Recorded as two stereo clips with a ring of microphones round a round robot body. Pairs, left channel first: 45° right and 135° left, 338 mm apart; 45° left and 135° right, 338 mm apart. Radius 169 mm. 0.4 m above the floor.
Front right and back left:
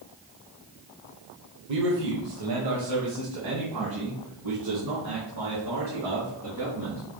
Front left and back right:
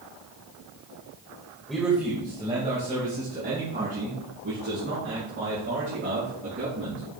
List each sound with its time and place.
1.7 s a man speaking: 135° left, 1.4 m; by 7.0 s 170° left, 5.5 m